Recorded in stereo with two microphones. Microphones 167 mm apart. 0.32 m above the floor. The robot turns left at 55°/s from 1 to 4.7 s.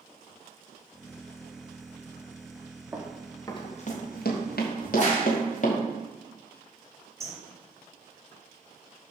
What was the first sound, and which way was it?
Running footsteps, 15° right (ahead or behind).